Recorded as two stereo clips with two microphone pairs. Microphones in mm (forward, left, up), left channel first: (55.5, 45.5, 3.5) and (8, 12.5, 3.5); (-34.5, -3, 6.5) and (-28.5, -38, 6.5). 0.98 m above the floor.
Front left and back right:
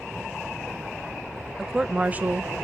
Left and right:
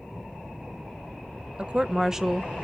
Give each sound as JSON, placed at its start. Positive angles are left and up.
{"t": 1.6, "sound": "a woman speaking", "azimuth_deg": -55, "distance_m": 0.5}